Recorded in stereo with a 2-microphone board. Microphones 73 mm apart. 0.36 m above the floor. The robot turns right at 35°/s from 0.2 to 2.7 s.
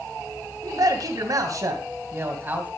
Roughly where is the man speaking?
Right.